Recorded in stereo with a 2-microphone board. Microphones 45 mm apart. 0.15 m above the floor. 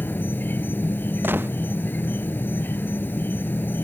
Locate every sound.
0.0 s an insect: 50° left (ahead or behind)
1.2 s a gunshot: 55° right (ahead or behind)